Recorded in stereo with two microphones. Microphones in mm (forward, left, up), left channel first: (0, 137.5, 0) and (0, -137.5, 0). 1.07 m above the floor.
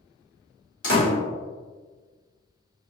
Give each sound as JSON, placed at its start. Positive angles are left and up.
{"t": 0.8, "sound": "a door slam", "side_deg": 85, "distance_m": 1.5}